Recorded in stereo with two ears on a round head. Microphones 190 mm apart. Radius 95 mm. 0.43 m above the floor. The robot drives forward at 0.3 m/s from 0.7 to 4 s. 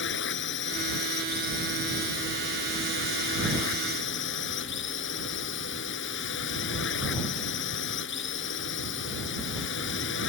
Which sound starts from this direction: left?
A drone, at 0.0 s.